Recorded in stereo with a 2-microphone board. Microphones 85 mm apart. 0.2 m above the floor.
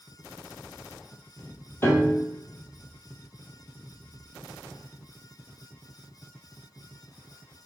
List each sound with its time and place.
1.8 s a piano: 30° left (ahead or behind), 0.8 m